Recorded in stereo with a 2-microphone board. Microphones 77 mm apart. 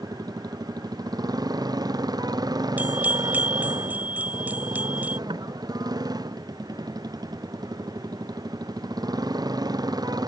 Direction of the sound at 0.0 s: 55° right (ahead or behind).